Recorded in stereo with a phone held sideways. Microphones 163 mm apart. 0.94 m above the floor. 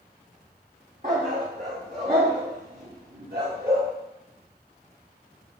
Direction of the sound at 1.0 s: 60° right (ahead or behind).